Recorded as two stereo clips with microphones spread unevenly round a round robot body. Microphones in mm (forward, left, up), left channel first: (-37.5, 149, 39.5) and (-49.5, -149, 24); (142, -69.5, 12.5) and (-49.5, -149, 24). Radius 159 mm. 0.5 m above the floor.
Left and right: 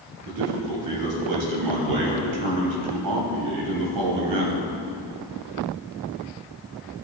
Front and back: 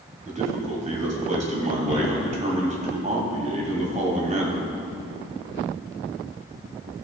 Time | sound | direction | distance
0.2 | a man speaking | 105° right | 3 m